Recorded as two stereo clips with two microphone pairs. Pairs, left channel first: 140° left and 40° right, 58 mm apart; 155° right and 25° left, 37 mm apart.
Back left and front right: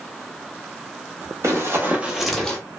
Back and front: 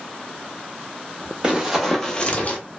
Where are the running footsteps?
35° right, 1.1 m; by 2.6 s 155° right, 0.9 m.